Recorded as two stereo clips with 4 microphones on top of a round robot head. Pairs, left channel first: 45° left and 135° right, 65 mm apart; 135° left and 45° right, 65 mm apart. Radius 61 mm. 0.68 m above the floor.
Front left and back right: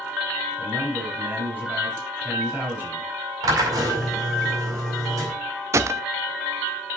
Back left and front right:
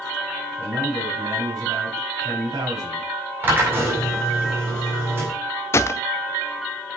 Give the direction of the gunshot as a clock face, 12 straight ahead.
6 o'clock.